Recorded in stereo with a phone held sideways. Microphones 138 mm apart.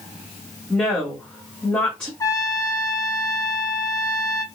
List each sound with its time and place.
0.7 s a woman speaking: 5° left (ahead or behind), 1.9 m
2.2 s a trumpet: 25° left (ahead or behind), 0.6 m